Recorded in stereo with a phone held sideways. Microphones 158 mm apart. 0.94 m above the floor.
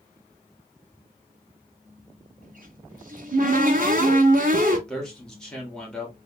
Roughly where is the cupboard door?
Right.